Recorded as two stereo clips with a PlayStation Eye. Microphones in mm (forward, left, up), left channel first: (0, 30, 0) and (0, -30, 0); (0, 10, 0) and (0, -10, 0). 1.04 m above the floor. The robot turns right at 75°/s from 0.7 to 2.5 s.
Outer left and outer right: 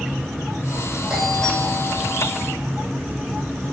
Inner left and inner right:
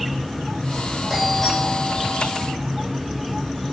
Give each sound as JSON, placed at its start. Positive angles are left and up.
{"t": 1.1, "sound": "a doorbell", "azimuth_deg": -10, "distance_m": 9.0}